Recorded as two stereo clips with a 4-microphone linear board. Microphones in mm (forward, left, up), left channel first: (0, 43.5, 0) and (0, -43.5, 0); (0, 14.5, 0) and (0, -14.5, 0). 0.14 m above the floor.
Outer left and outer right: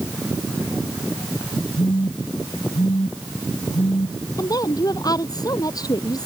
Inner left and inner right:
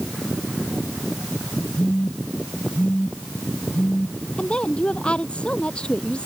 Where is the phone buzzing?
70° left (ahead or behind).